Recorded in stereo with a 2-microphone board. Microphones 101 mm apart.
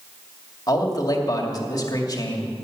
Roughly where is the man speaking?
Left.